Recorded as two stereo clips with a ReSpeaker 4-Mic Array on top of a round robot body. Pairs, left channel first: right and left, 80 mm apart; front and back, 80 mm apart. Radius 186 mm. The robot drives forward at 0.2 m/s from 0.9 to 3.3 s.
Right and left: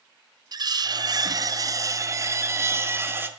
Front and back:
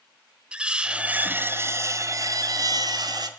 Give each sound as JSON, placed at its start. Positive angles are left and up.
{"t": 0.5, "sound": "cutlery clinking", "azimuth_deg": 105, "distance_m": 0.5}